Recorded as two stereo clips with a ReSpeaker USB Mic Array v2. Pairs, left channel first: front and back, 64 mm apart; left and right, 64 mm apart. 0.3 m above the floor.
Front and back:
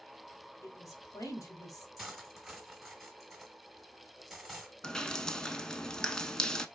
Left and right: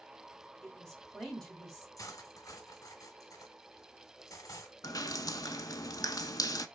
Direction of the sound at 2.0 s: 95° left.